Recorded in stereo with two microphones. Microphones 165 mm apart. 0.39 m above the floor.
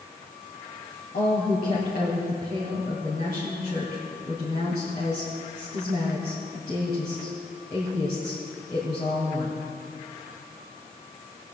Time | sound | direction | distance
1.1 | a woman speaking | 65° left (ahead or behind) | 2.5 m